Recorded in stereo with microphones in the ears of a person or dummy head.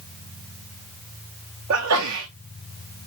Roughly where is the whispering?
I don't hear whispering.